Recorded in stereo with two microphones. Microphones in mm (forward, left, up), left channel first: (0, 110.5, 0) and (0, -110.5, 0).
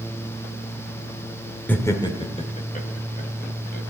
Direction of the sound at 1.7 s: 5° left (ahead or behind).